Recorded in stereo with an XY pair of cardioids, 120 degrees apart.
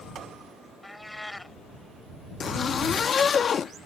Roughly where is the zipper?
Ahead left.